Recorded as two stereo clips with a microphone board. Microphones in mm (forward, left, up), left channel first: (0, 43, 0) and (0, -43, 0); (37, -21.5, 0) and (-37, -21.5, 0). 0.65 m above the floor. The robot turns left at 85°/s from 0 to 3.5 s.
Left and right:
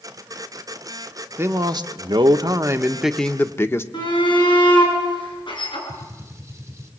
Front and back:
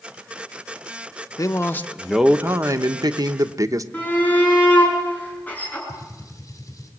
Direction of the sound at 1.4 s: 30° right.